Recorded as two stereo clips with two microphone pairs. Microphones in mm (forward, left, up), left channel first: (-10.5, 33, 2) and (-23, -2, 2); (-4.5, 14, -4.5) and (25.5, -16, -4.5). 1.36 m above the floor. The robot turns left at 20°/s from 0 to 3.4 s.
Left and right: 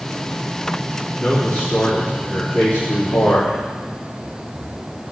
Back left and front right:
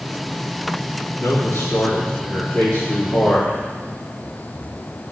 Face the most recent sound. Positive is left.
turn(degrees=90)